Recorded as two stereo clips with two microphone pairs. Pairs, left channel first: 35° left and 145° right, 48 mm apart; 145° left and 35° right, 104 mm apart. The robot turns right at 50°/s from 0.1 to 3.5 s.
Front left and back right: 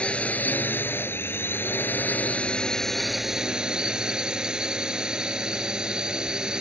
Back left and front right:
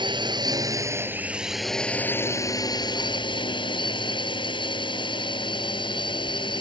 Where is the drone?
20° right; by 6.6 s 150° left.